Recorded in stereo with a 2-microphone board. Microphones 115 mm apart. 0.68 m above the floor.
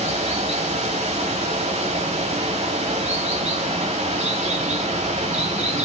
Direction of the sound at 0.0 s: 85° right.